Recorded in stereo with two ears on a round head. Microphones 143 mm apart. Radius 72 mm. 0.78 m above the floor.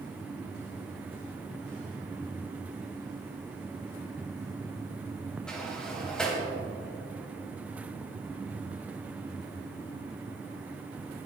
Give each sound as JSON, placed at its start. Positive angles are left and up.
{"t": 5.5, "sound": "a sliding door", "side_deg": 5, "distance_m": 3.0}